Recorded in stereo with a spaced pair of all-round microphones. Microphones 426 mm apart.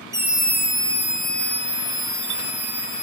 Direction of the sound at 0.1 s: 5° right (ahead or behind).